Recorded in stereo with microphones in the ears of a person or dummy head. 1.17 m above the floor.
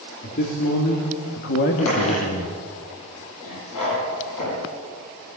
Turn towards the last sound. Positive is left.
turn(degrees=75)  # may be behind; listen again after turning